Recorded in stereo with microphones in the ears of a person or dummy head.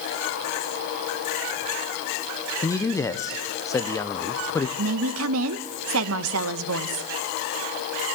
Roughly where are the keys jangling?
I don't hear keys jangling.